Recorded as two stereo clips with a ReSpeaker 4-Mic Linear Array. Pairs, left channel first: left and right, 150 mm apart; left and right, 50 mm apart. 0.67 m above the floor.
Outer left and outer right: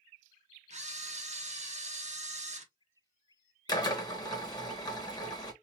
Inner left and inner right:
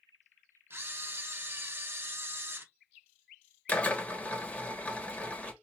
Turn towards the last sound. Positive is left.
turn(degrees=25)  # may be behind; listen again after turning